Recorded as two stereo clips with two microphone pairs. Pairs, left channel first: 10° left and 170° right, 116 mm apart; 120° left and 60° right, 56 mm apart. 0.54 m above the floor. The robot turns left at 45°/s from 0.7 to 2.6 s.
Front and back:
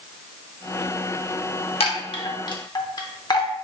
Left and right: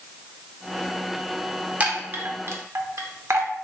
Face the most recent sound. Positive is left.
turn(degrees=-35)